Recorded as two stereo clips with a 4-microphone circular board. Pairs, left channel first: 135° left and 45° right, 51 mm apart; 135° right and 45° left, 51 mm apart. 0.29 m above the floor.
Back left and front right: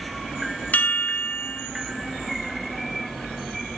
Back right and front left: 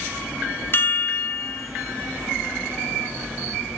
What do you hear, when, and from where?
0.7 s a chime: 170° right, 1.2 m